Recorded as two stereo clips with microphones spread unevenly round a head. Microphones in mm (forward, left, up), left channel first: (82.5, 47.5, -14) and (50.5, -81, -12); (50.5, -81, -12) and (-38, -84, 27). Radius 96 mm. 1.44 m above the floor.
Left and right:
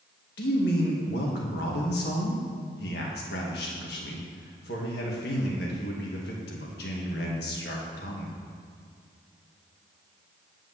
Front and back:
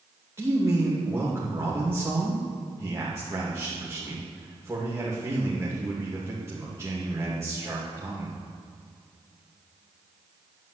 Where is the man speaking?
100° left, 2 m.